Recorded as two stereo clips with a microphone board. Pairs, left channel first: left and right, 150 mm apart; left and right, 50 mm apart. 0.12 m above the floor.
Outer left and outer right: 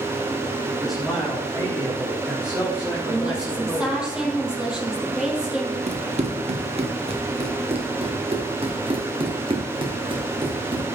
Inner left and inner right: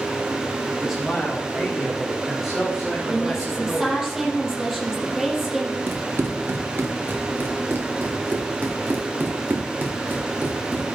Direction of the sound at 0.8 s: 5° right (ahead or behind).